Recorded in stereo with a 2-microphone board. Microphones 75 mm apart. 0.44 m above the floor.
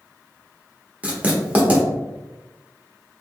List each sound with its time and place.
1.0 s writing: 20° right (ahead or behind), 0.8 m